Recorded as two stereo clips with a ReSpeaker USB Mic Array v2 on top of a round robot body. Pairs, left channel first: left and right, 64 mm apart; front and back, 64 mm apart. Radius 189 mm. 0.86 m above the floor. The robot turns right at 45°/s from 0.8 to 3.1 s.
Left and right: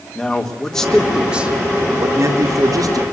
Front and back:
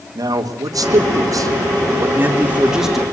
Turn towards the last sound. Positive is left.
turn(degrees=-85)